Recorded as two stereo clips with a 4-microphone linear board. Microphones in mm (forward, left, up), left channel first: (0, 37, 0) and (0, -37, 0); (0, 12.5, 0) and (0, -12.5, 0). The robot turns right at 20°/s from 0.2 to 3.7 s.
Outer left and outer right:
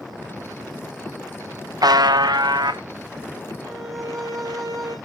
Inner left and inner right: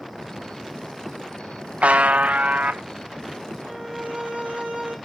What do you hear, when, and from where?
1.8 s a buzzer: 70° right (ahead or behind), 0.8 m; by 2.8 s 80° right, 0.8 m
3.6 s a violin: 60° right (ahead or behind), 4 m; by 5.0 s 65° right (ahead or behind), 4 m